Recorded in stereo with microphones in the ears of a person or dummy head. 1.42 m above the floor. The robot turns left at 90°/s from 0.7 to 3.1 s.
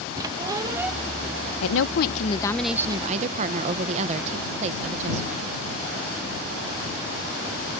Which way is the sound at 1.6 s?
95° left.